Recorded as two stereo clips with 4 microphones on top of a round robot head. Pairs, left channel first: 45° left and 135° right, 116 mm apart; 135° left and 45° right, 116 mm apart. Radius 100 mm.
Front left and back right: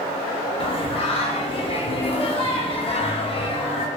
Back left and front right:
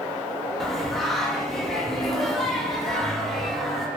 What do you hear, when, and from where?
0.6 s singing: 45° left, 0.6 m